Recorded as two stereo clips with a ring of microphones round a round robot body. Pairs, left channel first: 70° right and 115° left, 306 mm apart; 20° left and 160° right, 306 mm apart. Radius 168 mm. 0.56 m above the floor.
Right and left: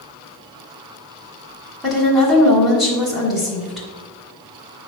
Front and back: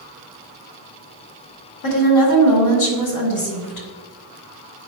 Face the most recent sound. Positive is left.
turn(degrees=25)